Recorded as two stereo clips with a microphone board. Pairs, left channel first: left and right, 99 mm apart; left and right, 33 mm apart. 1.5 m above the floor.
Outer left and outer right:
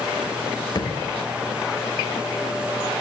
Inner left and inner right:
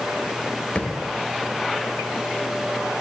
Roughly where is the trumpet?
I don't hear a trumpet.